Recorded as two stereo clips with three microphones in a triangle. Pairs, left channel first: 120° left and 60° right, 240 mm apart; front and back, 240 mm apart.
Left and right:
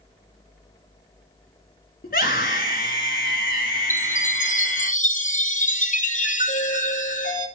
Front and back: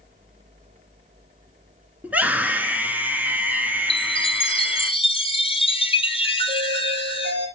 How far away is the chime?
About 0.8 m.